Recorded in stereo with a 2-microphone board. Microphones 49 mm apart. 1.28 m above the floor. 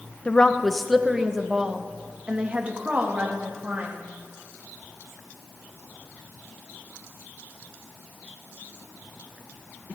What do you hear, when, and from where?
0.2 s a woman speaking: 20° left (ahead or behind), 0.7 m; by 4.0 s 35° right (ahead or behind), 2.5 m